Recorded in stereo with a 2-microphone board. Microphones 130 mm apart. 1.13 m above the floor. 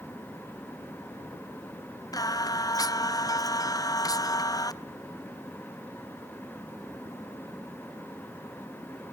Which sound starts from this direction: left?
Singing, at 2.1 s.